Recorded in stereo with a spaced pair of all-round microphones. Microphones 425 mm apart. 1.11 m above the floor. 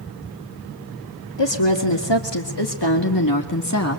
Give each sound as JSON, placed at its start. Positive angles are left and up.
{"t": 1.4, "sound": "a woman speaking", "side_deg": 85, "distance_m": 2.5}